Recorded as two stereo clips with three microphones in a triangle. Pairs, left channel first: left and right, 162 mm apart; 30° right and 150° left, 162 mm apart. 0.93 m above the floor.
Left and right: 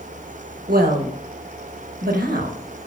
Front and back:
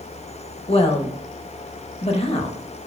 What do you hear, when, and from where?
0.7 s a woman speaking: 80° right, 0.7 m